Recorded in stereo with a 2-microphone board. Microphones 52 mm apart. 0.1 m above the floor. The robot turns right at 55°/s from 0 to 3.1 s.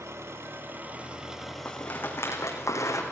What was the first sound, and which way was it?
An engine running, 85° right.